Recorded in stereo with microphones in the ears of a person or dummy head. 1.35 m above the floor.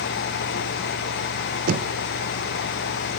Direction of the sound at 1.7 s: 55° right (ahead or behind).